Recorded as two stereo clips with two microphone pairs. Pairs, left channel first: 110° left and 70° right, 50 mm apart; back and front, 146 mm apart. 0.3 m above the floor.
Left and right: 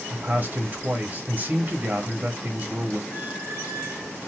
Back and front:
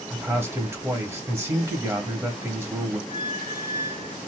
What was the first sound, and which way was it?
A man speaking, 60° right.